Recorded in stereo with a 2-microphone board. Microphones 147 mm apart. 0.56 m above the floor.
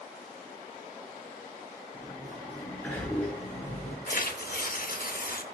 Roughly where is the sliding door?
Centre.